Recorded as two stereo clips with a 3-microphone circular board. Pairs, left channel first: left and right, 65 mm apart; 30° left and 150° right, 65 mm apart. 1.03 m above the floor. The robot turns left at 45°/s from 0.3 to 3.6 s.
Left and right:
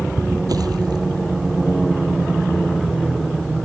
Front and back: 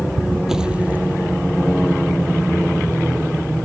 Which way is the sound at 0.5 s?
65° right.